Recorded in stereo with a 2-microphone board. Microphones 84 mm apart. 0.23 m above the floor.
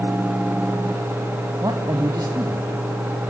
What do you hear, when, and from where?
1.6 s a man speaking: 45° right (ahead or behind), 1.8 m